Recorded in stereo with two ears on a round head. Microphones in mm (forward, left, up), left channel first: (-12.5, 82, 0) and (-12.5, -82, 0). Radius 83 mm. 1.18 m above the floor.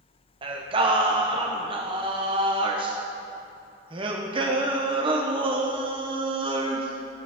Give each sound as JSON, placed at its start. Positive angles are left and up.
{"t": 0.4, "sound": "singing", "side_deg": -30, "distance_m": 0.7}